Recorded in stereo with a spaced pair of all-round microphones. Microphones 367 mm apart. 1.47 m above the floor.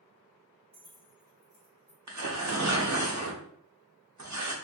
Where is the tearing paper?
50° right (ahead or behind), 0.6 m.